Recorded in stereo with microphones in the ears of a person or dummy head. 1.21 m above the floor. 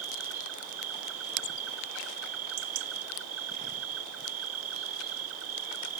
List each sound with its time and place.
0.0 s an insect: 80° right